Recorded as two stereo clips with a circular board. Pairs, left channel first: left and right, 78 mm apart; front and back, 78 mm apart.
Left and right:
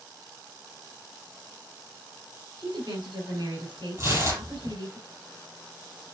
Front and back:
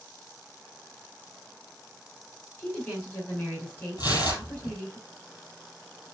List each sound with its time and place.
2.6 s a woman speaking: 65° right, 8 m
4.0 s tearing paper: 35° right, 6 m